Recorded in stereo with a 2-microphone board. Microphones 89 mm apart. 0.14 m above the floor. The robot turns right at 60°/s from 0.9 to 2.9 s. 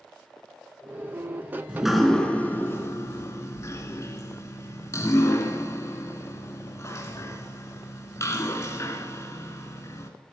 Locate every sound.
1.7 s dripping: 10° right (ahead or behind), 1.1 m; by 10.1 s 35° left (ahead or behind), 1.1 m